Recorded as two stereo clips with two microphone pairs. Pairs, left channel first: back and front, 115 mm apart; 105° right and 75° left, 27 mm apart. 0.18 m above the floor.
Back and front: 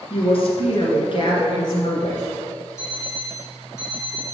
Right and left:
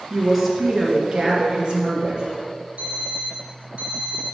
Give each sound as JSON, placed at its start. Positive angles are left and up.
{"t": 0.1, "sound": "a woman speaking", "azimuth_deg": 170, "distance_m": 2.0}
{"t": 2.8, "sound": "an alarm clock", "azimuth_deg": 115, "distance_m": 1.6}